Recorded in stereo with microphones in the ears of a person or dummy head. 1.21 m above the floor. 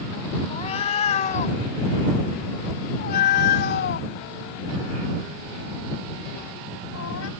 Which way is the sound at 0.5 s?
35° left (ahead or behind).